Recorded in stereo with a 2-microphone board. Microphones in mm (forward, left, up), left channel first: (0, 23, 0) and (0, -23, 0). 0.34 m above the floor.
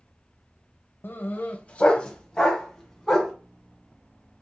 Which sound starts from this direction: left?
A dog barking, at 1.0 s.